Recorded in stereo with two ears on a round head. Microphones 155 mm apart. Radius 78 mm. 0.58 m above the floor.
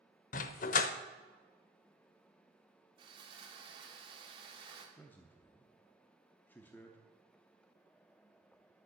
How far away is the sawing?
About 1.8 m.